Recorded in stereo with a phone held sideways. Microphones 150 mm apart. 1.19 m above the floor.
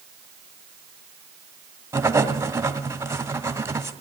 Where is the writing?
15° right (ahead or behind), 1.4 m.